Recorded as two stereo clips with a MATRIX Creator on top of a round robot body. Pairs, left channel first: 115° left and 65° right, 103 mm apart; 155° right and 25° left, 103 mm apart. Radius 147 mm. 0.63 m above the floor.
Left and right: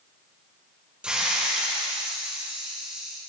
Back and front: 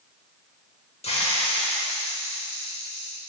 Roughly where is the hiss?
Behind right.